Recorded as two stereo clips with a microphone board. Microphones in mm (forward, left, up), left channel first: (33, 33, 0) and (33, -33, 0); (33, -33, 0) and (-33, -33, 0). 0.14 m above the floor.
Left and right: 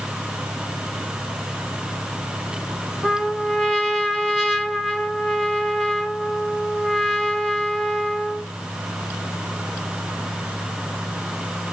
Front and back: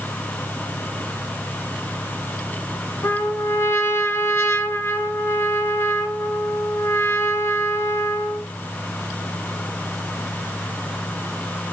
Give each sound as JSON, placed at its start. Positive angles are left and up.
{"t": 3.0, "sound": "a trumpet", "azimuth_deg": 5, "distance_m": 1.7}